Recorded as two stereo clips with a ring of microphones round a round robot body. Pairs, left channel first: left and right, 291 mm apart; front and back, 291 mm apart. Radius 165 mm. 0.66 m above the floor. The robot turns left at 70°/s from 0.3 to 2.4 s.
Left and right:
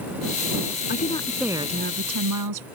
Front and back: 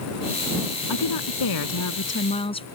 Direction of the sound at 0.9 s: 35° left.